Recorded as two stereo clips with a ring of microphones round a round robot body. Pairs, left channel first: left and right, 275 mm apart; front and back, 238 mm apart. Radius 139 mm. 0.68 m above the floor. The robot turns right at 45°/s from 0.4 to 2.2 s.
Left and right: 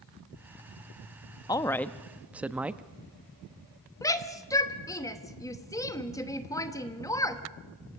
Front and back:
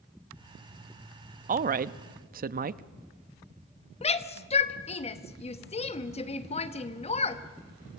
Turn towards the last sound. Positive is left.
turn(degrees=25)